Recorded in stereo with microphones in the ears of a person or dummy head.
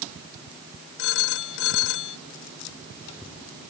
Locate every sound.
1.0 s a phone ringing: 65° left (ahead or behind)